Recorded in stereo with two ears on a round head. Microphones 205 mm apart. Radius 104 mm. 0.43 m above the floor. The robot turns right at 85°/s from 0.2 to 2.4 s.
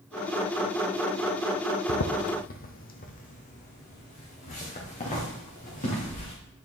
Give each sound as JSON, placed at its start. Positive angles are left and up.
{"t": 1.9, "sound": "footsteps", "side_deg": 60, "distance_m": 0.7}